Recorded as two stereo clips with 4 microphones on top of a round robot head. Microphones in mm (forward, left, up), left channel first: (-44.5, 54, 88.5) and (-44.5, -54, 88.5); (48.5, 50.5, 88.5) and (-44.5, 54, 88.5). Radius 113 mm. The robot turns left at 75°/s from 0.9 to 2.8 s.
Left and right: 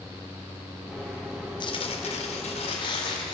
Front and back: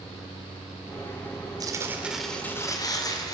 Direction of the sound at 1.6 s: 135° left.